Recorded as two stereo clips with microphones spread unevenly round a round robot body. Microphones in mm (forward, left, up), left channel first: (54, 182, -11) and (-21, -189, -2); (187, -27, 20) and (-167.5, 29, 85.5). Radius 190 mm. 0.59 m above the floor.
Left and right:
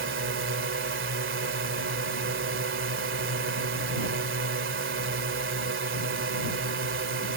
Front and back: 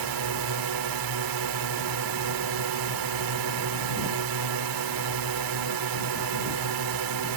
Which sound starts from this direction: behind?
A drone, at 0.0 s.